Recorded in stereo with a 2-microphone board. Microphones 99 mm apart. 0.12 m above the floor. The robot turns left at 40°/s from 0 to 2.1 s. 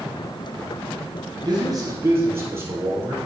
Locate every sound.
1.4 s a man speaking: 50° right (ahead or behind), 2.5 m; by 3.2 s 25° right (ahead or behind), 2.5 m